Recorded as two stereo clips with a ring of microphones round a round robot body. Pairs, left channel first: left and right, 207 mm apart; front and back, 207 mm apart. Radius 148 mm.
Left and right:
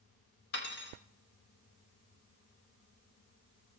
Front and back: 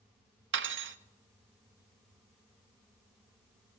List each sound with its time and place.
0.5 s cutlery clinking: 145° left, 0.7 m